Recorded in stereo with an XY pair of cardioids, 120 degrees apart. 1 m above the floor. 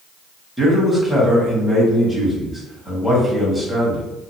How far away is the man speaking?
About 1.4 m.